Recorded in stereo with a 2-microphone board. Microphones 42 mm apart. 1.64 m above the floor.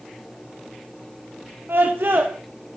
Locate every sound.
1.7 s a scream: 70° right (ahead or behind), 1.4 m